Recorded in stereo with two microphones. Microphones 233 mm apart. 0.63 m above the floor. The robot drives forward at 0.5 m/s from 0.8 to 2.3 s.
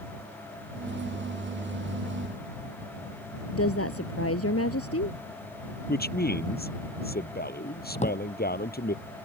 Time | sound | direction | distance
3.5 | a woman speaking | 80° left | ?
5.9 | a man speaking | 40° left (ahead or behind) | ?
8.0 | a drawer | 30° left (ahead or behind) | ?